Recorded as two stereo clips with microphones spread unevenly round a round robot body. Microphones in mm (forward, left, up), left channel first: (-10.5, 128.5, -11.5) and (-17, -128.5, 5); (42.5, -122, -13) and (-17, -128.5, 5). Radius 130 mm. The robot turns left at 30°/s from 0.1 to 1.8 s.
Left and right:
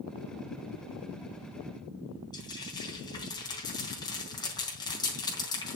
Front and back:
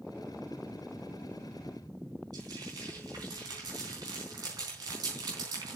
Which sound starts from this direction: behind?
Frying, at 2.3 s.